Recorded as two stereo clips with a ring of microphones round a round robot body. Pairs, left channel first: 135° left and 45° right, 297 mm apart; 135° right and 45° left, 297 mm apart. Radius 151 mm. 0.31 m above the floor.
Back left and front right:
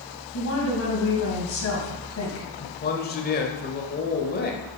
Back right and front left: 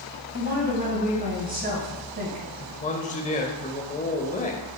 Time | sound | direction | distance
0.3 | a woman speaking | 100° left | 3 m
2.6 | a man speaking | 175° left | 1.1 m